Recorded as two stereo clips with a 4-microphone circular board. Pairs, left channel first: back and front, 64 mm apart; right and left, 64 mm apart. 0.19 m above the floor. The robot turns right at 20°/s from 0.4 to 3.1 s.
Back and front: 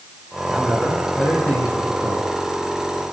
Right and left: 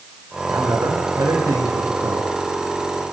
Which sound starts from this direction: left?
A man speaking, at 0.5 s.